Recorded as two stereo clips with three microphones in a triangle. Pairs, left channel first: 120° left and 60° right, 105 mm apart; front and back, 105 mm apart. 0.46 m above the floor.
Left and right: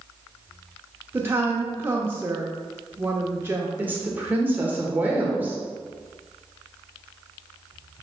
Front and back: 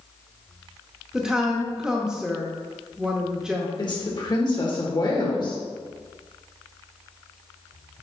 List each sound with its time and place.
1.1 s a woman speaking: 105° right, 0.9 m
3.8 s a woman speaking: 5° left, 1.7 m